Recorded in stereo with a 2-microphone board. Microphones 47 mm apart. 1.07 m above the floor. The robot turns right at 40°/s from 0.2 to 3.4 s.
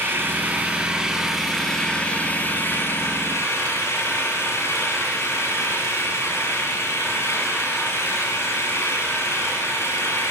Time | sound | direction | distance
0.0 | an engine running | 50° right | 6.5 m